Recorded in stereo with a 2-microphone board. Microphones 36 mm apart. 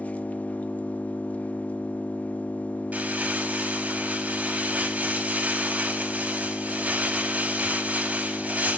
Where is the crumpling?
45° right (ahead or behind), 4.5 m.